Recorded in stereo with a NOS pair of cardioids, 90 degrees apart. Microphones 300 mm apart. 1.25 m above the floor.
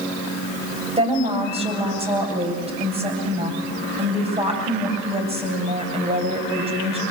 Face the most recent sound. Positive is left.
turn(degrees=-20)